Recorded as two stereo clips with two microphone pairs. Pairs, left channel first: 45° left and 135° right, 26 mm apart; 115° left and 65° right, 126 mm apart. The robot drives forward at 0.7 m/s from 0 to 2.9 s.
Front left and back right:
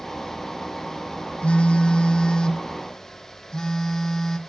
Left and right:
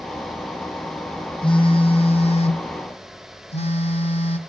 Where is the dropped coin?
No dropped coin in this recording.